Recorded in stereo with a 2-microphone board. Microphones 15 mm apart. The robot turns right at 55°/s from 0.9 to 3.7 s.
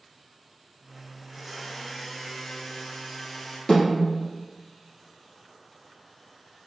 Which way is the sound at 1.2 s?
20° right.